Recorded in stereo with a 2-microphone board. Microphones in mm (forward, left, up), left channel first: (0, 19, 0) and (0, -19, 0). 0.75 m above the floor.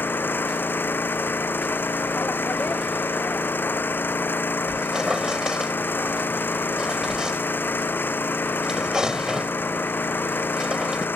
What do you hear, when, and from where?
0.0 s an engine running: 65° left (ahead or behind)
4.7 s a squeak: 15° right (ahead or behind)